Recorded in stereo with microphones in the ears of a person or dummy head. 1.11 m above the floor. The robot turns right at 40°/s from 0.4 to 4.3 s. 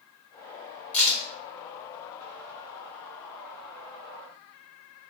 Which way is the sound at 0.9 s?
5° left (ahead or behind).